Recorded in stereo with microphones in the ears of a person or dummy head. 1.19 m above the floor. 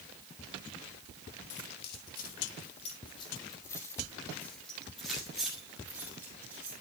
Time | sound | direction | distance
1.5 | keys jangling | 60° left (ahead or behind) | 1.4 m